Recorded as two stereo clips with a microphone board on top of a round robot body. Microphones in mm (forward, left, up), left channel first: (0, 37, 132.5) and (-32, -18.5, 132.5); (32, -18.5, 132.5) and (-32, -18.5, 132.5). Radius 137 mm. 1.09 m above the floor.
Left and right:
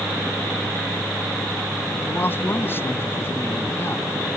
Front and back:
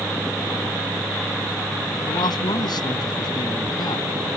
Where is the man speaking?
Straight ahead; by 4.1 s 5° left.